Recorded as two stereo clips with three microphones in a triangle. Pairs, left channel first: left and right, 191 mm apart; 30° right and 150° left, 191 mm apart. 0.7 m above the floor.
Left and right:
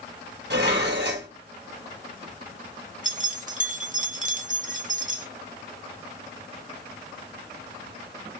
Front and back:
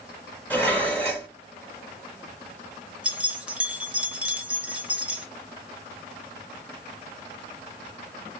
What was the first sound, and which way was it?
Dishes clattering, 110° right.